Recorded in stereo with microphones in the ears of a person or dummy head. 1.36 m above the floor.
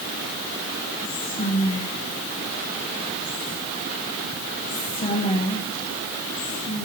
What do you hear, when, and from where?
1.0 s whispering: 35° left (ahead or behind), 1.7 m